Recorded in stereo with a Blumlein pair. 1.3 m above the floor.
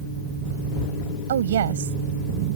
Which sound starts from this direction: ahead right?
A woman speaking, at 1.3 s.